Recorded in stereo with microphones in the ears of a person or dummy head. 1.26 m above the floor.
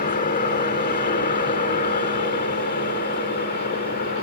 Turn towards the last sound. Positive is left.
turn(degrees=45)  # may be behind; listen again after turning